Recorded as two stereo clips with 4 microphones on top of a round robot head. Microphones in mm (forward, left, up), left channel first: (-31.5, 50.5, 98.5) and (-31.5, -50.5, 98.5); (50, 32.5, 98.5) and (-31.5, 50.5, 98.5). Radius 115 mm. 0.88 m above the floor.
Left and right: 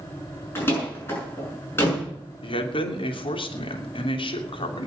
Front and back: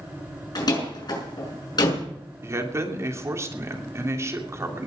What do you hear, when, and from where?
0.6 s a door slam: 20° left, 6.5 m
2.4 s a man speaking: 115° left, 3 m